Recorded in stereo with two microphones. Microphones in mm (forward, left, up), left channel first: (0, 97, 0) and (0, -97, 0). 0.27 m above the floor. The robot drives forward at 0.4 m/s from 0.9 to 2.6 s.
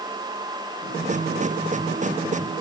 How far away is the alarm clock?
I don't hear an alarm clock.